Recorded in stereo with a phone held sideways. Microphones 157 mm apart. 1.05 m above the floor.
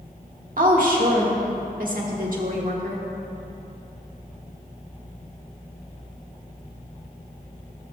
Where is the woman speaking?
60° right (ahead or behind), 1.6 m.